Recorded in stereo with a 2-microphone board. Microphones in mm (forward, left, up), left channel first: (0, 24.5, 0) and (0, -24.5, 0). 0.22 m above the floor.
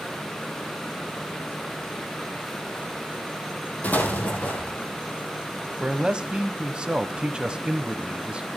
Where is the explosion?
35° left (ahead or behind), 2.5 m.